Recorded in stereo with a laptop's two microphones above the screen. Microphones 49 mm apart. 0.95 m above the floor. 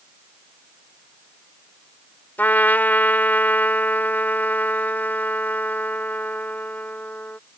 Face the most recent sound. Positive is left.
turn(degrees=35)  # may be behind; listen again after turning